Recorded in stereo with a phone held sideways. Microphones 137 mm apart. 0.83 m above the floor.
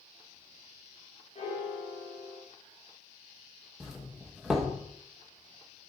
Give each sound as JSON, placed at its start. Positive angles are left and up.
{"t": 1.4, "sound": "a piano", "side_deg": 55, "distance_m": 1.5}
{"t": 3.8, "sound": "a doorbell", "side_deg": -5, "distance_m": 1.0}